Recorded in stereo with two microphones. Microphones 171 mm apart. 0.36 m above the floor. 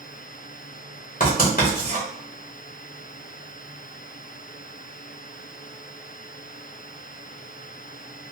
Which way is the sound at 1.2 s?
55° left (ahead or behind).